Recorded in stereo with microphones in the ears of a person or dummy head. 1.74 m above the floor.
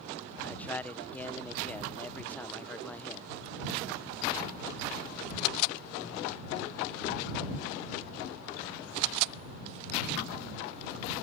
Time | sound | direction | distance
0.4 | a man speaking | 10° left (ahead or behind) | ?